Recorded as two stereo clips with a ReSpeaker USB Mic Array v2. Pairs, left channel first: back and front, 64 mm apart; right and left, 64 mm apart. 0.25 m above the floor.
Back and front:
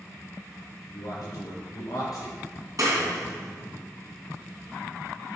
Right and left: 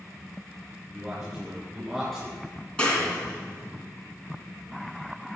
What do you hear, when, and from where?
0.9 s a man speaking: 170° left, 4 m; by 3.8 s 175° right, 2 m
2.8 s a clap: 20° right, 2.5 m